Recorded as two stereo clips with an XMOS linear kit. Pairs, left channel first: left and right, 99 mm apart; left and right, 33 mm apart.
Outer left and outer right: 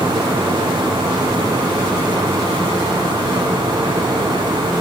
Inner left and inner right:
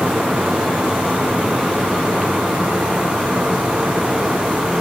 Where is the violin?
No violin in this recording.